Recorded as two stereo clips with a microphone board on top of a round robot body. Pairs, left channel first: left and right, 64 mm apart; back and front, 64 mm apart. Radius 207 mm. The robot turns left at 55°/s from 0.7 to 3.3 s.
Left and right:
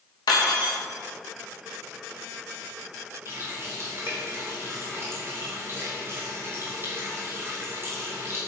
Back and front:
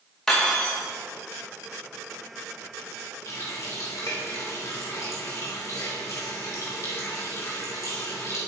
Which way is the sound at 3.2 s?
140° right.